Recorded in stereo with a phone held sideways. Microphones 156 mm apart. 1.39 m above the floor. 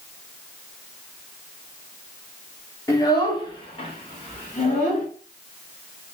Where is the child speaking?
20° left (ahead or behind), 1.4 m; by 5.1 s 50° left (ahead or behind), 2 m.